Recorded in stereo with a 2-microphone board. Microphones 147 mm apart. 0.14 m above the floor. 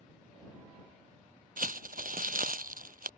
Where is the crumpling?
75° right (ahead or behind).